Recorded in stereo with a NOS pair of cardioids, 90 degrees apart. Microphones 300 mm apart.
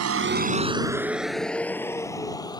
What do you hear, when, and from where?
0.0 s a vehicle: 55° right; by 2.6 s 15° left